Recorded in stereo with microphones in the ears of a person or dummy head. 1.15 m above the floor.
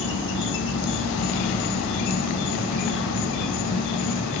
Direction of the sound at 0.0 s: 65° left (ahead or behind).